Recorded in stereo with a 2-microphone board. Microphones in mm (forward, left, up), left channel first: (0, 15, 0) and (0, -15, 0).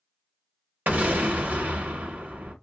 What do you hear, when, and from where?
0.9 s an explosion: 80° right, 1.0 m